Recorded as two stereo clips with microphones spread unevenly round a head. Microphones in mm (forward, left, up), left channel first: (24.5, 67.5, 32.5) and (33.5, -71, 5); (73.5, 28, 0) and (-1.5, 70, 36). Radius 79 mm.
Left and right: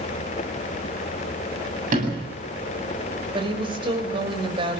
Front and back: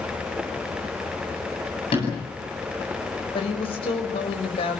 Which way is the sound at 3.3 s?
30° right.